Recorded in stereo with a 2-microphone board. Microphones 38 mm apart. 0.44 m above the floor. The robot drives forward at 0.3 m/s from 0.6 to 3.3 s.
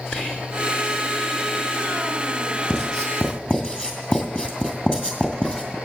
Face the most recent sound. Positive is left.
turn(degrees=25)  # may be behind; listen again after turning